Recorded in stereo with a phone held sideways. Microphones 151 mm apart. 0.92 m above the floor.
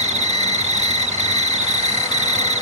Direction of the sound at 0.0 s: 50° right (ahead or behind).